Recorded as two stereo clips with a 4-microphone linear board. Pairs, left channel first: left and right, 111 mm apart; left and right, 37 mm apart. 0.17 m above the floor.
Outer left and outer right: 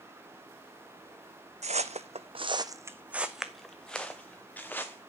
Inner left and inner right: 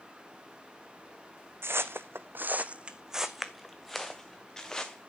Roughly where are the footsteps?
Right.